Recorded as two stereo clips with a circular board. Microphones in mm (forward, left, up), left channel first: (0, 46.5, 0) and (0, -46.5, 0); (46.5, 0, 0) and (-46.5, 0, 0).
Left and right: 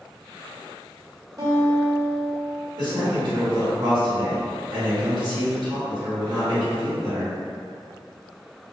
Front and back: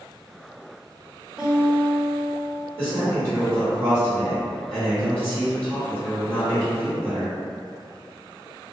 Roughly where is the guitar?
Right.